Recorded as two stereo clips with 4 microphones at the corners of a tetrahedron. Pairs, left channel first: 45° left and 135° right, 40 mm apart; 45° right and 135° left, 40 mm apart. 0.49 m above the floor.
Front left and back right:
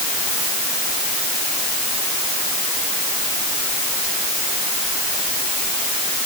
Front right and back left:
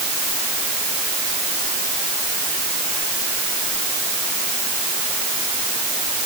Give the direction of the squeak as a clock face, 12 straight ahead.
I don't hear a squeak.